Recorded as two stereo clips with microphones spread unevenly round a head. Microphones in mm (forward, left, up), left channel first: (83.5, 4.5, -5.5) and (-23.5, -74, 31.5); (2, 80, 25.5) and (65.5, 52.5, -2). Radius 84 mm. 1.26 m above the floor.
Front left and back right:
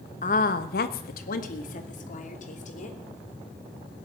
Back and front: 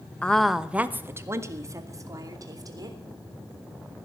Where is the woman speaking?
85° left, 1.1 m; by 3.0 s 10° left, 3.5 m.